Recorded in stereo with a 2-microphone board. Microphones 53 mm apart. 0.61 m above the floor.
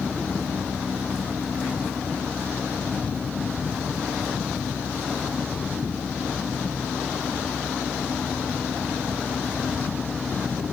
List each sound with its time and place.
Only background noise.